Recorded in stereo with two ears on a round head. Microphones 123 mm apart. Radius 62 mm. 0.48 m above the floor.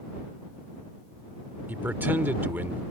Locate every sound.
1.7 s a man speaking: 15° right (ahead or behind)